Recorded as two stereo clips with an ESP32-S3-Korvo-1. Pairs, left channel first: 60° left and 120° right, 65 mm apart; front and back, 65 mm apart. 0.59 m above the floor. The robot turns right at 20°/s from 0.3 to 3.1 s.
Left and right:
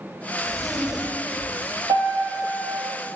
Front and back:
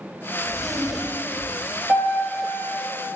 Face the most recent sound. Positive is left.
turn(degrees=-80)